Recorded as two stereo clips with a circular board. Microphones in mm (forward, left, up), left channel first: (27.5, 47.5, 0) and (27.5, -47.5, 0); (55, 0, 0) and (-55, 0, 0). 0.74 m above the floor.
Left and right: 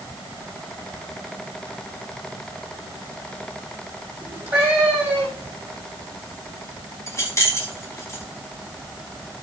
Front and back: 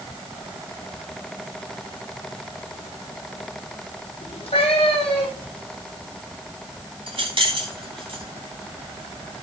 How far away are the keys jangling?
About 4 m.